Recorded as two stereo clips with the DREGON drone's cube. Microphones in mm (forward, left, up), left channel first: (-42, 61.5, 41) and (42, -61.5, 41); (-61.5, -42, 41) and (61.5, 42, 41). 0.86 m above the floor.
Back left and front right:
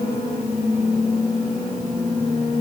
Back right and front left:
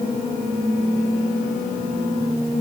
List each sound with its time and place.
Only background noise.